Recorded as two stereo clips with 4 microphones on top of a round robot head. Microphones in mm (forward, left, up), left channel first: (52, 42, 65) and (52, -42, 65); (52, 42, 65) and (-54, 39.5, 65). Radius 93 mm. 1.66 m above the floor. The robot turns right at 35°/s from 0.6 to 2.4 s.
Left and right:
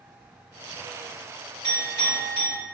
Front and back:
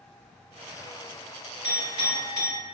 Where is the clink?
140° right, 1.1 m; by 2.6 s 110° right, 1.1 m.